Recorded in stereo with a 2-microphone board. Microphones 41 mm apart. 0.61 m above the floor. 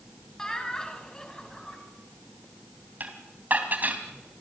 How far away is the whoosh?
I don't hear a whoosh.